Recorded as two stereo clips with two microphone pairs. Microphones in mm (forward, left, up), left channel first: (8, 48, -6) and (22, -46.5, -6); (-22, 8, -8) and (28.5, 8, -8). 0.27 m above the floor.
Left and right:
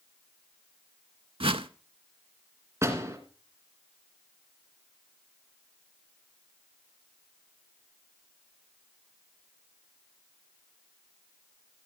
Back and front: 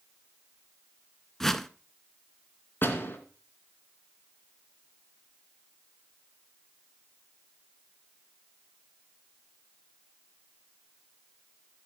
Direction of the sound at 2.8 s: 140° right.